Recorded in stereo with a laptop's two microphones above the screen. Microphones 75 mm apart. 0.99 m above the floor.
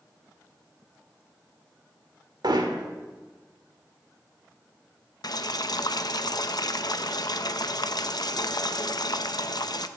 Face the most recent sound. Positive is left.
turn(degrees=60)  # may be behind; listen again after turning